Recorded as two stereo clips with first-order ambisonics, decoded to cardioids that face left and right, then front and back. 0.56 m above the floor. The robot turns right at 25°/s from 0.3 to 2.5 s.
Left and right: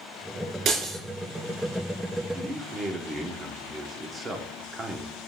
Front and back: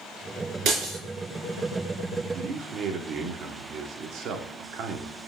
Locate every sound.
0.7 s breaking glass: 140° right, 4 m; by 1.0 s 130° right, 4 m
2.3 s a man speaking: 155° right, 1.2 m; by 5.2 s 150° right, 1.2 m